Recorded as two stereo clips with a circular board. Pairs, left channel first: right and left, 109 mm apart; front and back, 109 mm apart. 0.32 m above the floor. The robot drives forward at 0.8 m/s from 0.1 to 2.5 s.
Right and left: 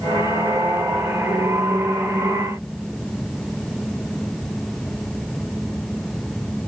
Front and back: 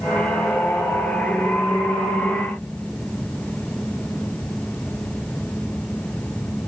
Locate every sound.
Only background noise.